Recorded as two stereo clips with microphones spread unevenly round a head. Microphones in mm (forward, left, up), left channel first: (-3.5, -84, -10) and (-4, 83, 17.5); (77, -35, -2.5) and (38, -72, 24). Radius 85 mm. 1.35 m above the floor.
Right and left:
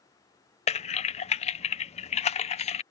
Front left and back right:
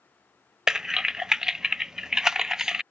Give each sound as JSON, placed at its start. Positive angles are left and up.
{"t": 0.7, "sound": "typing on a keyboard", "azimuth_deg": -45}